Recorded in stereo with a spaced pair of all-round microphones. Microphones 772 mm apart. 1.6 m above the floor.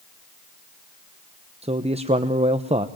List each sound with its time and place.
1.6 s a man speaking: 10° right (ahead or behind), 0.8 m